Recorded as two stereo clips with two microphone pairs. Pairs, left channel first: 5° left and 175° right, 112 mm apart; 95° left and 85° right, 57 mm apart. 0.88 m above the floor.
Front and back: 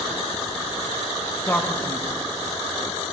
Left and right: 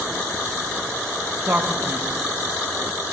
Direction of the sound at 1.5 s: 60° right.